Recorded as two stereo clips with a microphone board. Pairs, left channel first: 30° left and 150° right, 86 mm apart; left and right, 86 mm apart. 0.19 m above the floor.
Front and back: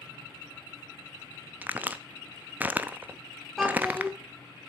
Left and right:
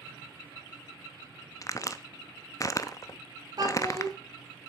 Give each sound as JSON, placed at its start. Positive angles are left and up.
{"t": 1.6, "sound": "a crack", "azimuth_deg": 140, "distance_m": 0.6}
{"t": 3.6, "sound": "a child speaking", "azimuth_deg": -60, "distance_m": 2.0}